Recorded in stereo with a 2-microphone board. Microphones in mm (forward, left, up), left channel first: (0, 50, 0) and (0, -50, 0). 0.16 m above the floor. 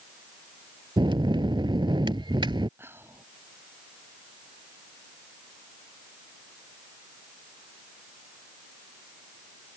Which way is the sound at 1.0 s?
50° right (ahead or behind).